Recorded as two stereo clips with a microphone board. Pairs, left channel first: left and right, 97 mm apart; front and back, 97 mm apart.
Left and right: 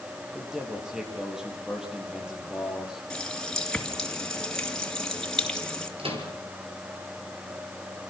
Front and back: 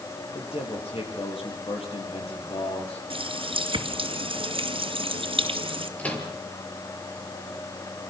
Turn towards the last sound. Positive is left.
turn(degrees=-75)